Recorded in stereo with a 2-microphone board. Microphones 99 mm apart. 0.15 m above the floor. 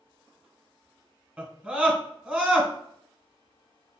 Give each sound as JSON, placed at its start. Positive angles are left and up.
{"t": 1.4, "sound": "a scream", "side_deg": -10, "distance_m": 1.2}